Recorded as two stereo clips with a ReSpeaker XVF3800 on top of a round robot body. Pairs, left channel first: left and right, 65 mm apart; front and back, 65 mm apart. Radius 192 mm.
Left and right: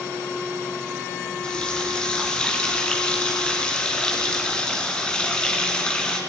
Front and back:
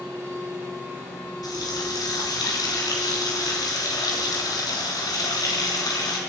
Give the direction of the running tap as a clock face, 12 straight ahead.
12 o'clock.